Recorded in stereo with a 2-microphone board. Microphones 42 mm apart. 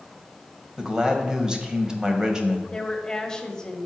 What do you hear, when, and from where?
0.8 s a man speaking: 15° right (ahead or behind), 1.1 m
2.7 s a woman speaking: 15° left (ahead or behind), 1.0 m